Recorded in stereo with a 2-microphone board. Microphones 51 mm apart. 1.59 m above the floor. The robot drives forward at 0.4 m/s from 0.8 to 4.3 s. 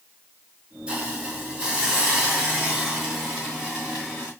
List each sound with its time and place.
0.9 s a hiss: 20° right (ahead or behind), 2.5 m; by 4.3 s 10° right (ahead or behind), 3.5 m